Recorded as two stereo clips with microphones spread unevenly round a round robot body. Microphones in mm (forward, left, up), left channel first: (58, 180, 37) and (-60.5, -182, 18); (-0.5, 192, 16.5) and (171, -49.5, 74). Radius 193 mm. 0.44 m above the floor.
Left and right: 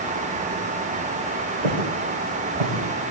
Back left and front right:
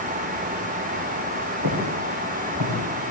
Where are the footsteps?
100° right, 9 m; by 2.8 s 105° right, 8 m.